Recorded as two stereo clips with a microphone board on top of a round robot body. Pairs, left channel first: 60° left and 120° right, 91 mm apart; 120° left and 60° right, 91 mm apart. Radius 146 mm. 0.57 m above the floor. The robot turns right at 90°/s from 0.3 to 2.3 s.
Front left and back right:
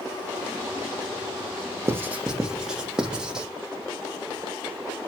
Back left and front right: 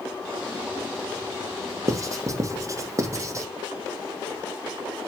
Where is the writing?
80° right, 1.4 m; by 3.5 s 45° right, 1.4 m.